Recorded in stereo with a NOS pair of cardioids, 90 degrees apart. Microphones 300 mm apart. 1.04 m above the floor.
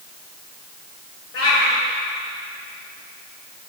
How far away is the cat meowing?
About 3 m.